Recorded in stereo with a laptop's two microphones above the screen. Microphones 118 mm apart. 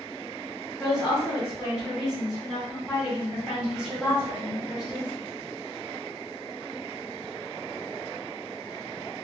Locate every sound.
0.8 s a woman speaking: 5° right (ahead or behind), 1.2 m